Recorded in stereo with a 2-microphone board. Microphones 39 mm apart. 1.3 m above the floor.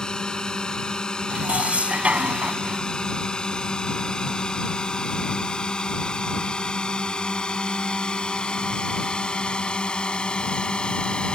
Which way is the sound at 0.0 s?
20° left (ahead or behind).